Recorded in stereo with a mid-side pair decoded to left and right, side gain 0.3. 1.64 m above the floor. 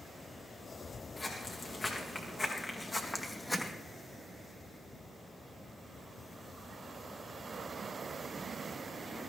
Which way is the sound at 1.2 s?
50° left.